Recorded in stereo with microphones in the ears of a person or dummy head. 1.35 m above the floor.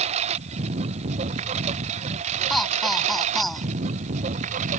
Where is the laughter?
5° left (ahead or behind).